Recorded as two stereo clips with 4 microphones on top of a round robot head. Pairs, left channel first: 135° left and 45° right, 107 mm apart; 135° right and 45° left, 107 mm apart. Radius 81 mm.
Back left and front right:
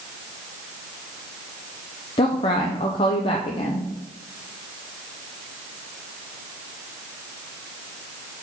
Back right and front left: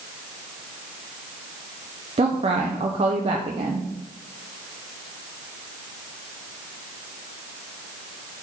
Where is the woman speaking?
90° left, 0.6 m.